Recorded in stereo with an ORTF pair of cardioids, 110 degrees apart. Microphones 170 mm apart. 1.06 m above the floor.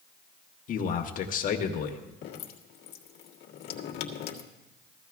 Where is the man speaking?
55° left, 1.6 m.